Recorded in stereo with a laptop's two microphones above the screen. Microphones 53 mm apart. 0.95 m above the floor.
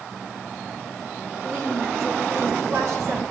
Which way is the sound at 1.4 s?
55° right (ahead or behind).